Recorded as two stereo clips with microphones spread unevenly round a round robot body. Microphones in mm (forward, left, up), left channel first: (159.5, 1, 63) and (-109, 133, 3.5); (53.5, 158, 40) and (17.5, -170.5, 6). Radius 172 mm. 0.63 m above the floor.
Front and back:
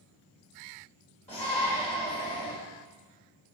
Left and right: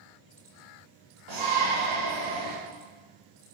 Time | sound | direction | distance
1.3 | a shout | 100° right | 3 m